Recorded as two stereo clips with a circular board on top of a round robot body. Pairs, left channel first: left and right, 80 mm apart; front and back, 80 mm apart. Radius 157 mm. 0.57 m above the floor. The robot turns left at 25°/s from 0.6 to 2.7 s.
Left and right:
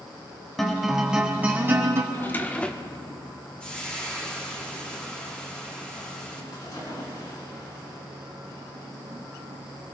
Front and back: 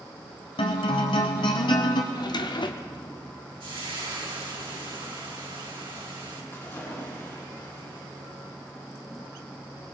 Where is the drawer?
30° left, 0.9 m; by 3.1 s 15° left, 0.9 m.